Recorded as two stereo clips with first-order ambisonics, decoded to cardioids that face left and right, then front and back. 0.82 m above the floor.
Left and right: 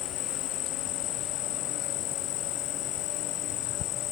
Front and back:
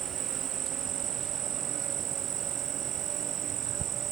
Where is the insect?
125° left.